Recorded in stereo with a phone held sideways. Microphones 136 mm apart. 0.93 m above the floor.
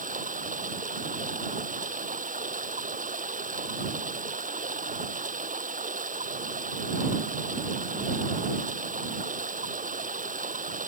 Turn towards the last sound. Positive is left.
turn(degrees=-65)  # may be behind; listen again after turning